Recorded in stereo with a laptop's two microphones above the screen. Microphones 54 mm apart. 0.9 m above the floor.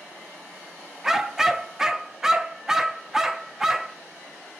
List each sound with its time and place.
1.0 s a dog barking: 10° right (ahead or behind), 0.5 m